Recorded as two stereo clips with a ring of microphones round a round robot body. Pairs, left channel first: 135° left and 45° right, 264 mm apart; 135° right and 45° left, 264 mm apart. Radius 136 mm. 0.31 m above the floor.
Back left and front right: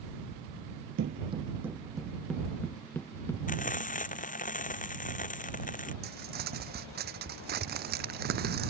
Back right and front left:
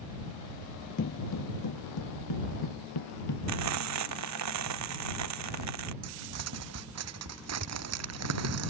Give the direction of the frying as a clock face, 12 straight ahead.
10 o'clock.